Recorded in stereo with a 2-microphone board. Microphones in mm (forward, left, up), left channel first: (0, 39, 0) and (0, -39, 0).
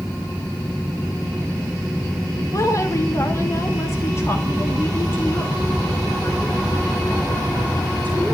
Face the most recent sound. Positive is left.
turn(degrees=25)  # may be behind; listen again after turning